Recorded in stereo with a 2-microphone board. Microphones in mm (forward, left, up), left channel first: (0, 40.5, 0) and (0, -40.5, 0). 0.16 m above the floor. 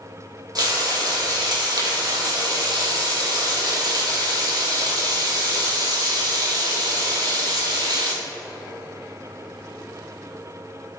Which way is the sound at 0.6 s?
55° right (ahead or behind).